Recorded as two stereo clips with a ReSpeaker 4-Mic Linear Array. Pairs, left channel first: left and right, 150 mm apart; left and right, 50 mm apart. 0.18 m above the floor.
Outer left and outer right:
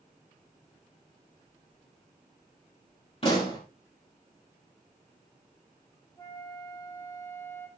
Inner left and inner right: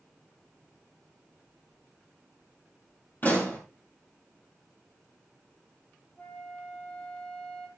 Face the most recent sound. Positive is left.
turn(degrees=20)  # may be behind; listen again after turning